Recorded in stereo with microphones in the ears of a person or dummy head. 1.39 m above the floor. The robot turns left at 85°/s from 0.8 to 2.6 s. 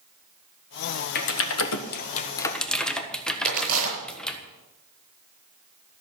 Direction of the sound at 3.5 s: 50° right (ahead or behind).